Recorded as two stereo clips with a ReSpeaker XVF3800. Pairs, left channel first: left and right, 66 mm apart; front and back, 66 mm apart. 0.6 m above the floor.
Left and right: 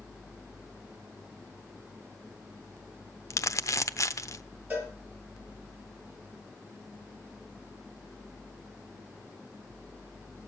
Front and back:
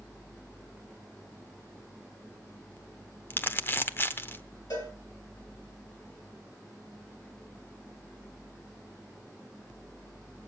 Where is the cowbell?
25° right, 5 m.